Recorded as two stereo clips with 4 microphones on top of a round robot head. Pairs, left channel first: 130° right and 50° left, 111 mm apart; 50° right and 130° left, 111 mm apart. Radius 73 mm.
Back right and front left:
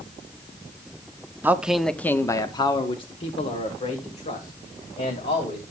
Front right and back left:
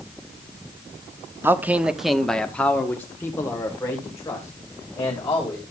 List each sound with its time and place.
1.4 s a man speaking: 95° left, 0.8 m; by 5.6 s 110° right, 3 m